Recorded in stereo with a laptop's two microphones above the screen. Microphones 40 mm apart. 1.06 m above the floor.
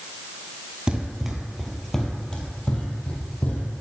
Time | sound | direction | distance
0.9 | running footsteps | 20° right (ahead or behind) | 1.2 m